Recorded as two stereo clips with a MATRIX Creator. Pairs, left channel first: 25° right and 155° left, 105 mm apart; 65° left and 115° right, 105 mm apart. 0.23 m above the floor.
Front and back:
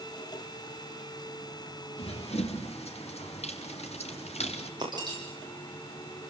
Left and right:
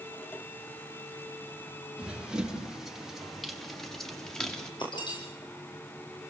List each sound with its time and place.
2.0 s running footsteps: 30° right, 4 m; by 4.7 s 15° right, 5 m
4.8 s breaking glass: 110° left, 10 m